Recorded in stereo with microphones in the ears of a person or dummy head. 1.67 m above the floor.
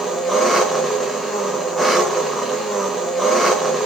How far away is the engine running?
About 0.7 m.